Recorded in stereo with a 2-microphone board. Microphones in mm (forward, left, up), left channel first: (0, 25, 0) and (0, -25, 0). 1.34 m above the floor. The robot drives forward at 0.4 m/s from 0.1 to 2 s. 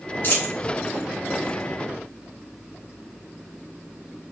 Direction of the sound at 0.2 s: 50° left (ahead or behind).